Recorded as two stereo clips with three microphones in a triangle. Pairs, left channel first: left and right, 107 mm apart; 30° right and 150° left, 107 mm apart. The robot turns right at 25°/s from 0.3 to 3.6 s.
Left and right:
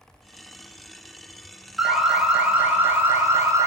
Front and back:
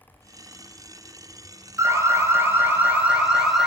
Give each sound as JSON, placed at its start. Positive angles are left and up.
{"t": 1.8, "sound": "an alarm", "azimuth_deg": -175, "distance_m": 0.9}